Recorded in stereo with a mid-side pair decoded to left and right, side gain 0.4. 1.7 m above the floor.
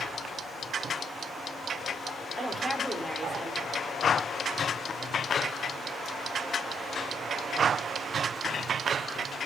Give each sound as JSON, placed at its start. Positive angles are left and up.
{"t": 2.4, "sound": "a woman speaking", "azimuth_deg": -5, "distance_m": 6.0}